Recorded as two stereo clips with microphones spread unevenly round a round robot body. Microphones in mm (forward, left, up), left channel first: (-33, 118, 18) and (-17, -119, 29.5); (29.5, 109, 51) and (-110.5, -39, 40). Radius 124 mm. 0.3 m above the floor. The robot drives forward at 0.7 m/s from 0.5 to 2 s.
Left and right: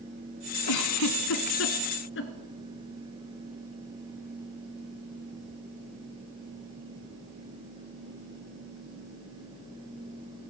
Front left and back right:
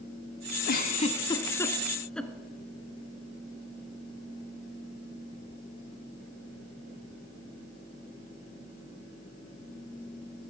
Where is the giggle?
90° left, 1.0 m; by 2.3 s 135° left, 1.4 m.